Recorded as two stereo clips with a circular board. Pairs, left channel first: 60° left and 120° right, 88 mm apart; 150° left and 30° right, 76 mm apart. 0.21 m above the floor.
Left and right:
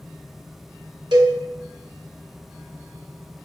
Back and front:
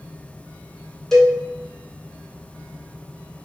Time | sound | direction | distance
1.1 | a cowbell | 125° right | 0.9 m